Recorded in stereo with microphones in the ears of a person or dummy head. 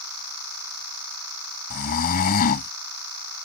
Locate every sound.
1.7 s snoring: 45° left (ahead or behind)